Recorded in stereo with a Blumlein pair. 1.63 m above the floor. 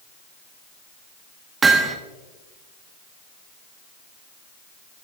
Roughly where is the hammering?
Ahead.